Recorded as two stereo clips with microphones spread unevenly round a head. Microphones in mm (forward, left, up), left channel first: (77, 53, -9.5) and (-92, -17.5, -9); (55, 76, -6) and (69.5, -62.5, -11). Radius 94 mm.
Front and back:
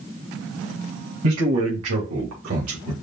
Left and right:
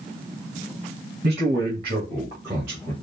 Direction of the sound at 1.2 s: 140° right.